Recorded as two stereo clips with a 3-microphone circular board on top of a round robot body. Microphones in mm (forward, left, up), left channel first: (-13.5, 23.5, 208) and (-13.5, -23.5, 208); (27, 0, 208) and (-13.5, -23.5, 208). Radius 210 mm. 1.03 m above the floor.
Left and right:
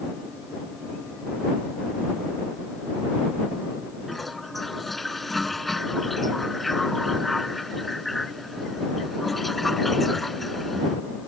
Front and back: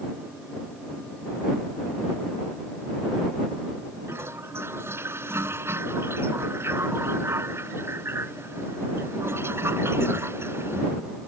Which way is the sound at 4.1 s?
Straight behind.